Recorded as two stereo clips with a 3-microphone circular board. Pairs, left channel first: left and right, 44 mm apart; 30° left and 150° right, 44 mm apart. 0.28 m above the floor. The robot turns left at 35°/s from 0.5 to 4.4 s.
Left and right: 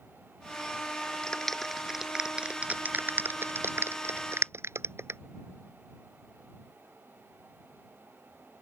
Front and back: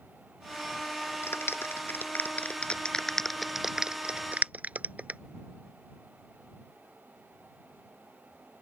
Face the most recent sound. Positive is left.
turn(degrees=-95)